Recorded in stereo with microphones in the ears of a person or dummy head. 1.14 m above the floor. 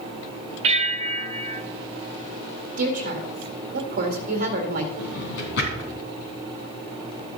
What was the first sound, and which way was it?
A bell, 40° right (ahead or behind).